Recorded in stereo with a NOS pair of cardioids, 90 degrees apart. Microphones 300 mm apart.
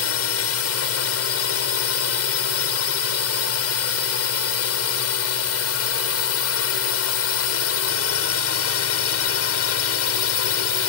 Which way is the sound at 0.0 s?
55° left.